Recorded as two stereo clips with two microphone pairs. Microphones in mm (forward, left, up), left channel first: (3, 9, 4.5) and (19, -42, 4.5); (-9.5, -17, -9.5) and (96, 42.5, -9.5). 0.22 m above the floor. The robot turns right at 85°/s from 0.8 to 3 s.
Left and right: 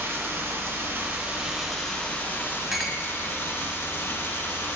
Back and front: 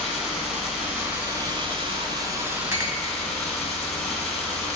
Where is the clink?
5° left, 0.7 m; by 3.0 s 30° left, 0.7 m.